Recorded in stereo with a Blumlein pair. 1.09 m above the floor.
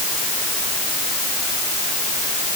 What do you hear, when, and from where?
Only background noise.